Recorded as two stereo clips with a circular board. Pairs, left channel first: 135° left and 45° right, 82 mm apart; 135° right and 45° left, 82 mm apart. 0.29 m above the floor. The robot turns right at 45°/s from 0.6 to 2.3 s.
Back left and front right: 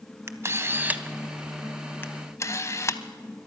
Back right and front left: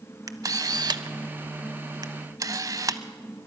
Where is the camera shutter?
10° left, 0.7 m; by 3.0 s 85° left, 0.7 m.